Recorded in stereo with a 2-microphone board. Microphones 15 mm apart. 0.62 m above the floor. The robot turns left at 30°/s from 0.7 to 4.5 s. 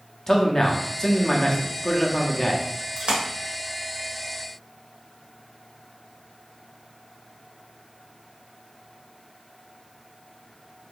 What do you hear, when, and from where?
0.3 s a man speaking: 115° left, 0.7 m; by 2.6 s 55° left, 0.7 m
3.0 s a splash: 85° right, 0.9 m; by 3.2 s 90° right, 0.9 m